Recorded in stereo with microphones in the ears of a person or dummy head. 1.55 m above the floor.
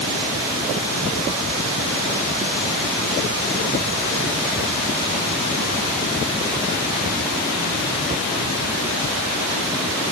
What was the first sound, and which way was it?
Only background noise.